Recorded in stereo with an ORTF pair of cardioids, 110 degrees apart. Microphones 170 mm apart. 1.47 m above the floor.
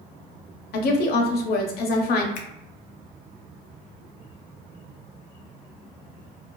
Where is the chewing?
No chewing in this recording.